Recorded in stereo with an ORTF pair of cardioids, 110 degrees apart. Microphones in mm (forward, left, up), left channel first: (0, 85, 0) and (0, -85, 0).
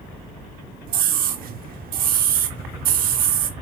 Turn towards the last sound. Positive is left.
turn(degrees=-60)